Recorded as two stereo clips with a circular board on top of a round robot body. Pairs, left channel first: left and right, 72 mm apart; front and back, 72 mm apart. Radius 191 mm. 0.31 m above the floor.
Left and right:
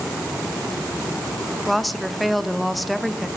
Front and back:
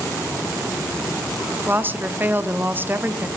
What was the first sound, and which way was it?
A woman speaking, straight behind.